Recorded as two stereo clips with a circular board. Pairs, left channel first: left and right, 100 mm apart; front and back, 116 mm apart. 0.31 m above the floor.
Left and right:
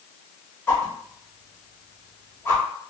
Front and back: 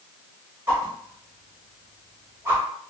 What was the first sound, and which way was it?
A whoosh, 135° left.